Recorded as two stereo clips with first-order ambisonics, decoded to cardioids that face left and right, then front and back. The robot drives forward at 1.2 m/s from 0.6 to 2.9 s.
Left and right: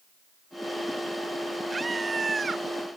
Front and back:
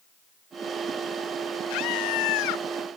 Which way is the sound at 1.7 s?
15° right.